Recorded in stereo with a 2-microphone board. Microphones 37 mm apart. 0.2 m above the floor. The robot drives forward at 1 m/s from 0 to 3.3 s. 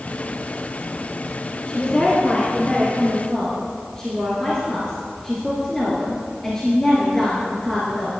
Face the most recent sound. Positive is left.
turn(degrees=20)  # may be behind; listen again after turning